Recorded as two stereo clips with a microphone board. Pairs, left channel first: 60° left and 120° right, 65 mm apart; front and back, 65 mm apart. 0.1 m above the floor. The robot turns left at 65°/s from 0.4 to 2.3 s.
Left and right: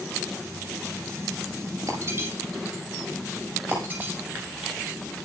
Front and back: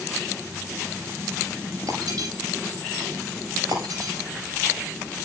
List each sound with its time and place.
1.9 s breaking glass: 160° right, 8.5 m; by 4.1 s 170° left, 8.5 m